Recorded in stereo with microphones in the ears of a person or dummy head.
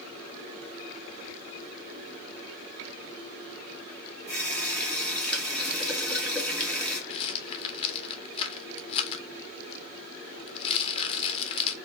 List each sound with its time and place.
4.3 s a running tap: 5° left (ahead or behind), 1.5 m
7.1 s a rattle: 35° left (ahead or behind), 0.7 m